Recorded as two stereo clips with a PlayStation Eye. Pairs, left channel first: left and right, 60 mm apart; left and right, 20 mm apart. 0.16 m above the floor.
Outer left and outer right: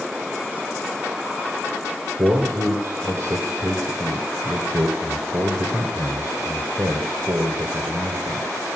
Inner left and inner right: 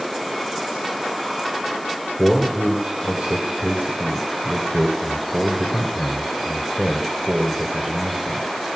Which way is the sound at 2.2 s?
40° right (ahead or behind).